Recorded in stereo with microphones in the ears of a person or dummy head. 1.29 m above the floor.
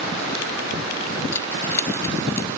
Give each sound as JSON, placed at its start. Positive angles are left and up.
{"t": 1.3, "sound": "keys jangling", "side_deg": 15}